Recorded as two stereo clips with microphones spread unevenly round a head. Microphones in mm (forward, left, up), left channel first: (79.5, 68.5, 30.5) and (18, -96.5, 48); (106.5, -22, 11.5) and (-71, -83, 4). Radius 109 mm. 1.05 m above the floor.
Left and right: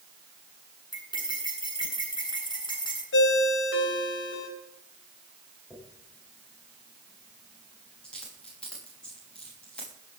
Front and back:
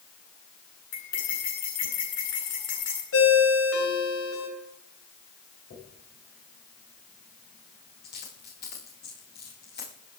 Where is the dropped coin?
15° right, 9.5 m.